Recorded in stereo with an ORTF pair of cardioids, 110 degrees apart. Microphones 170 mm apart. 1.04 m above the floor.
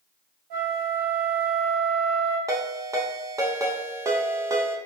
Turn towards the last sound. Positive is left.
turn(degrees=-20)